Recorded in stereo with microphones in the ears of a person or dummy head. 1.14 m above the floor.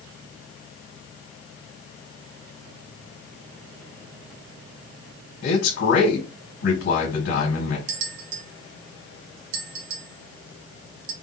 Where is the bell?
75° right (ahead or behind), 1.4 m.